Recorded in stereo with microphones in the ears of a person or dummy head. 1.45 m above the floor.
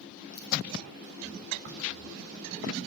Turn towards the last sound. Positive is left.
turn(degrees=-55)  # may be behind; listen again after turning